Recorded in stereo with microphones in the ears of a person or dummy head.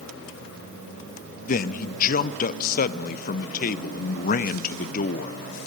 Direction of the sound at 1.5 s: 40° left (ahead or behind).